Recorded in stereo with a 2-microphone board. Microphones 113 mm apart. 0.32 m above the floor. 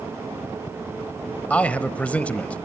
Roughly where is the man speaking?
Centre.